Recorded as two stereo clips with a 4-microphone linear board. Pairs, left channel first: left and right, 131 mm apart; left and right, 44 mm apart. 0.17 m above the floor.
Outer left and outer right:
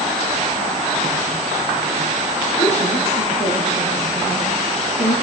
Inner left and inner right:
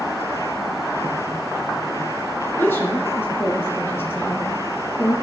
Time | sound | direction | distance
2.6 | a woman speaking | 60° left (ahead or behind) | 3 m